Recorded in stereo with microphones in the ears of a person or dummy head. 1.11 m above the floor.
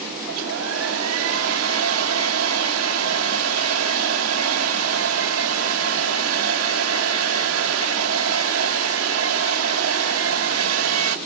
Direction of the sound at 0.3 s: 85° right.